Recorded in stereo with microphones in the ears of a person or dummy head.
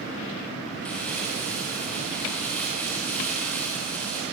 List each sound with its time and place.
0.8 s crumpling: 10° left (ahead or behind), 4.5 m